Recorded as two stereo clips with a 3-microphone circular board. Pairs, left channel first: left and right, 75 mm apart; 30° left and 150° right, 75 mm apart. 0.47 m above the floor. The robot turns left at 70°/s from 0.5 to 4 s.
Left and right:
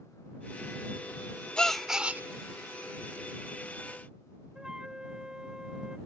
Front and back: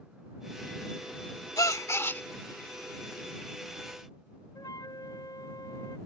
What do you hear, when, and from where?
1.6 s a gasp: 15° left; by 2.2 s 30° right
4.5 s a flute: 10° right